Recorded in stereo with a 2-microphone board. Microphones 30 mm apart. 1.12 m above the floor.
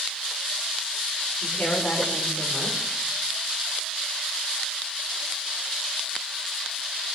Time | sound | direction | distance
1.4 | a woman speaking | 80° left | 4.5 m